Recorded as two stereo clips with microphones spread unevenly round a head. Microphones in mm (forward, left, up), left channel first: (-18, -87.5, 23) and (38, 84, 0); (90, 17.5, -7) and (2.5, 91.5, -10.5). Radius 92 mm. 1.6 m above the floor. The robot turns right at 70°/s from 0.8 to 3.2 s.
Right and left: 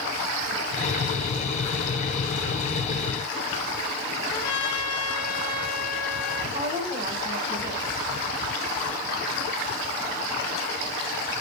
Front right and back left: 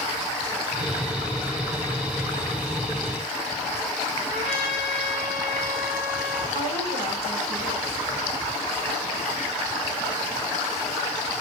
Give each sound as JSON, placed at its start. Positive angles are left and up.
{"t": 4.3, "sound": "a trumpet", "azimuth_deg": -175, "distance_m": 4.5}
{"t": 6.5, "sound": "a woman speaking", "azimuth_deg": 150, "distance_m": 5.5}